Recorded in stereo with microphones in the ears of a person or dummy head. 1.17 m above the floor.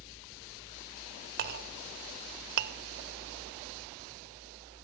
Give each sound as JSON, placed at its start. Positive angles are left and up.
{"t": 1.4, "sound": "a clink", "side_deg": -55, "distance_m": 0.8}